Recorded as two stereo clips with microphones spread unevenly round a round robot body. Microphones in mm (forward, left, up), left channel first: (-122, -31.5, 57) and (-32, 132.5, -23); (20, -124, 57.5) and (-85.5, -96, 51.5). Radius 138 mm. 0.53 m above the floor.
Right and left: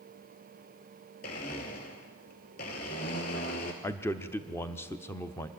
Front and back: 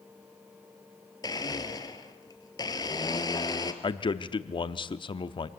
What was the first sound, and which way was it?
A blender, 70° right.